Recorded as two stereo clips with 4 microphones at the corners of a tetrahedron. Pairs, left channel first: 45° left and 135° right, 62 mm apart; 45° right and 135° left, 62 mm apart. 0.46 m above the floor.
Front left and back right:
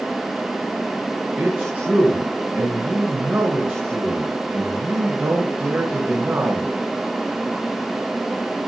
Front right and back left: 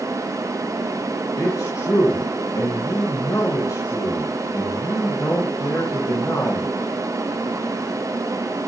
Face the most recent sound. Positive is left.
turn(degrees=-80)